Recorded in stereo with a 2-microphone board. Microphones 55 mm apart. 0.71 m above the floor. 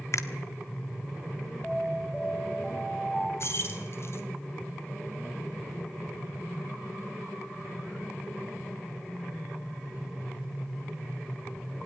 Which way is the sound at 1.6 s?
5° left (ahead or behind).